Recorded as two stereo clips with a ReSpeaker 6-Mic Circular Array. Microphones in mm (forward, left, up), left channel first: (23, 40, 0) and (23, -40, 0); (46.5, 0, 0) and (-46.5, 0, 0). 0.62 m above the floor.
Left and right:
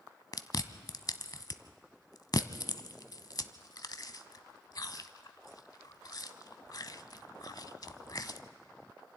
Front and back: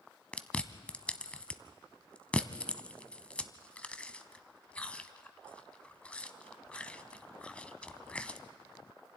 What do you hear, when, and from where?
0.3 s chewing: 75° left, 0.7 m